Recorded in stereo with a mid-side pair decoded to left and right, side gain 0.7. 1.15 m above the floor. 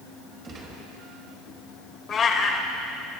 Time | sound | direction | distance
0.4 | a gunshot | 30° right | 4.5 m
2.1 | a cat meowing | 35° left | 1.9 m